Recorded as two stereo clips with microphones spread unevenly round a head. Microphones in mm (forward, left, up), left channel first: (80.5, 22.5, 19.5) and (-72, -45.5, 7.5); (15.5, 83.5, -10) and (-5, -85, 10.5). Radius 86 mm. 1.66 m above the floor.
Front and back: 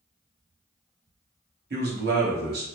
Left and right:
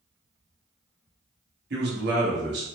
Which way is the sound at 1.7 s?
130° right.